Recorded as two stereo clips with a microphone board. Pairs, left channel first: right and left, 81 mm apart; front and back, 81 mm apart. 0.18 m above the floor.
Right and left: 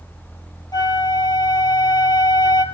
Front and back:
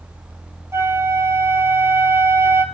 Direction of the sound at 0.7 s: 125° right.